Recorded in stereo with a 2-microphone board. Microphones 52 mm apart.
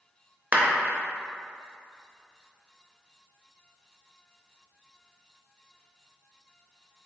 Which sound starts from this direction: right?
A clap, at 0.5 s.